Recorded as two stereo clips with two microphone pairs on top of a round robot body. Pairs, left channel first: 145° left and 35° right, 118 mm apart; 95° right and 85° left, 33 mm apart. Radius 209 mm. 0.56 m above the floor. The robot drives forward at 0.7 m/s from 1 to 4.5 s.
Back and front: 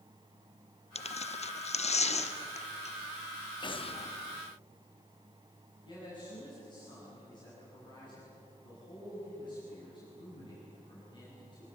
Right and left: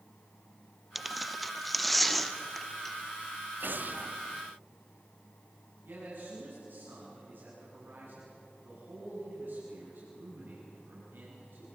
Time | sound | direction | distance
0.9 | tearing paper | 165° left | 0.9 m
3.6 | an explosion | 95° left | 0.9 m
5.8 | a man speaking | 95° left | 8.5 m